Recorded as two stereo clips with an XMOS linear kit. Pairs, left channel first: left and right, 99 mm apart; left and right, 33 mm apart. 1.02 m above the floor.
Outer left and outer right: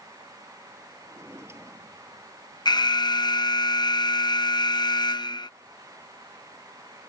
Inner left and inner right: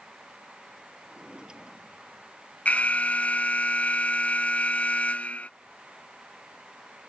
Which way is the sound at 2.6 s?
50° left (ahead or behind).